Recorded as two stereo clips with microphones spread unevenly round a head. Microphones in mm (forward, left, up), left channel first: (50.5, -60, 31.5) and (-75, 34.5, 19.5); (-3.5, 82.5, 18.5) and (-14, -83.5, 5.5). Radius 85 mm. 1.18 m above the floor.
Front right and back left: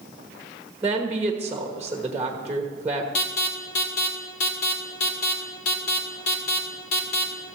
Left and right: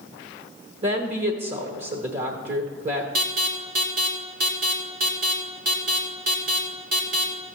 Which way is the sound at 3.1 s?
60° right.